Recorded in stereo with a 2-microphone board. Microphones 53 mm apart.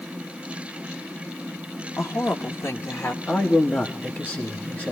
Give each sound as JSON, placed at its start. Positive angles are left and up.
{"t": 2.0, "sound": "a woman speaking", "side_deg": 60, "distance_m": 1.3}
{"t": 3.3, "sound": "a man speaking", "side_deg": 35, "distance_m": 1.5}